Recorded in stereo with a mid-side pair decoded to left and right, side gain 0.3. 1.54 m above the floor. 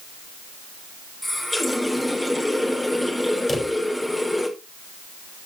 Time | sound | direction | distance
1.2 | a running tap | 10° left | 3.5 m
3.5 | a drawer | 35° left | 4 m